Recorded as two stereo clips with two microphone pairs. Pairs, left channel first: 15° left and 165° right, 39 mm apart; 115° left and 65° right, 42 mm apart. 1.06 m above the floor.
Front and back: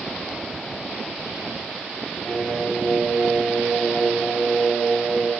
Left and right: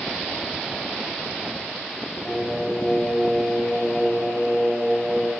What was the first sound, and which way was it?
Singing, 50° left.